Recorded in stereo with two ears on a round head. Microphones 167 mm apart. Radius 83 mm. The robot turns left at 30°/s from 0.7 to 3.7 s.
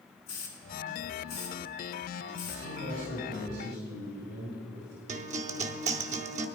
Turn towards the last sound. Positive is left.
turn(degrees=-40)  # may be behind; listen again after turning